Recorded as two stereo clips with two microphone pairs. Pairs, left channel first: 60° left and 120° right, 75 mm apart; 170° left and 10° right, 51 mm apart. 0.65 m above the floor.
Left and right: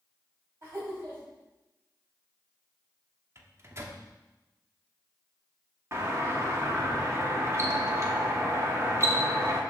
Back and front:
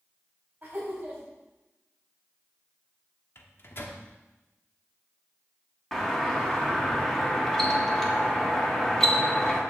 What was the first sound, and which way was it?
Laughter, 65° right.